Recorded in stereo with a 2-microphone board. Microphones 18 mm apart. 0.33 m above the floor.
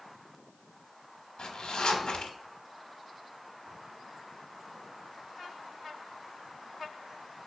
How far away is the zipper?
About 0.6 m.